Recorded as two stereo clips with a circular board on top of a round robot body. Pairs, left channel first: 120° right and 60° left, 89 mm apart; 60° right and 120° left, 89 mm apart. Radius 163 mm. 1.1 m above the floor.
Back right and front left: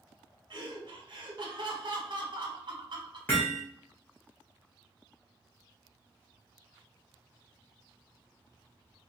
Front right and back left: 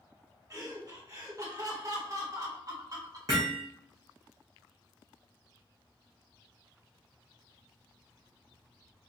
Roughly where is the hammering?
Behind.